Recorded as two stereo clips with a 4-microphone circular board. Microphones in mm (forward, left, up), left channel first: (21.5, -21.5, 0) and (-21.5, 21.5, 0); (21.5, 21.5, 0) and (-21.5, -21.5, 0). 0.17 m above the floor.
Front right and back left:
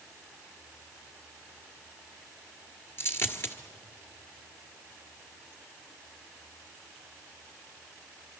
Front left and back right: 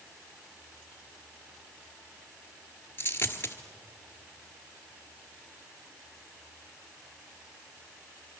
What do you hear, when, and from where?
3.0 s a dropped coin: 5° right, 1.5 m